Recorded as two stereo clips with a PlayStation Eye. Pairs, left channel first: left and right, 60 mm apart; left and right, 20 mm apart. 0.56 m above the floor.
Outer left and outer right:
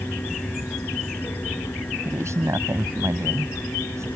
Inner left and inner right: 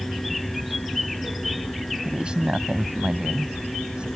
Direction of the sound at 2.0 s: 55° right (ahead or behind).